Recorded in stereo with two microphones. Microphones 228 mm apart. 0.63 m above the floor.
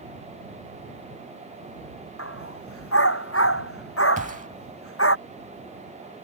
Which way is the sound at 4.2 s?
35° right (ahead or behind).